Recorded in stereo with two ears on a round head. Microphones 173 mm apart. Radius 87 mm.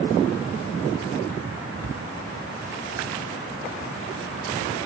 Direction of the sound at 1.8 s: 55° right (ahead or behind).